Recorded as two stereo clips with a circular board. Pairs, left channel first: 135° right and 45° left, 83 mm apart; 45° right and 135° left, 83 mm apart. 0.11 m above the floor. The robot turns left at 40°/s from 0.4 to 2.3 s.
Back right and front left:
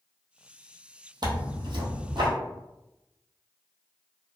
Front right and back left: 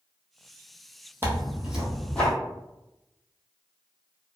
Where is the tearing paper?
70° left, 0.9 m; by 2.3 s 30° left, 0.9 m.